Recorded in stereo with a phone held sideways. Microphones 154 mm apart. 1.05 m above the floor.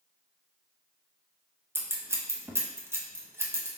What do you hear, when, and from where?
1.8 s scissors: 15° right (ahead or behind), 0.6 m